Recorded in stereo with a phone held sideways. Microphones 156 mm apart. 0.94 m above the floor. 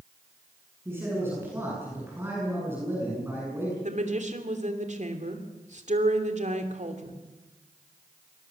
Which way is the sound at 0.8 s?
15° right (ahead or behind).